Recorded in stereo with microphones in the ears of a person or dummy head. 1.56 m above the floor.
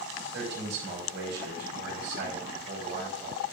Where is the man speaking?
75° right (ahead or behind), 5 m.